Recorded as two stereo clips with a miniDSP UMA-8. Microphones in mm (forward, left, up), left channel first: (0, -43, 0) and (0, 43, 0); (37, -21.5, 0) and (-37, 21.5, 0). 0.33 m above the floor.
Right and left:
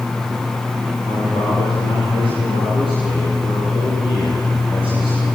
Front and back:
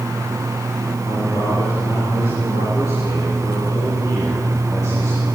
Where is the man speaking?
75° right, 9.5 m; by 5.2 s 90° right, 8.5 m.